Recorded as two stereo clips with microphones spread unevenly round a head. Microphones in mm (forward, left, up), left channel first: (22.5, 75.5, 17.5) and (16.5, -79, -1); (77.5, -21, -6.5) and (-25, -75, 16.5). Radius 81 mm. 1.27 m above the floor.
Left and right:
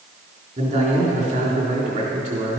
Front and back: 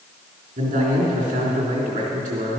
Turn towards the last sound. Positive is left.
turn(degrees=-145)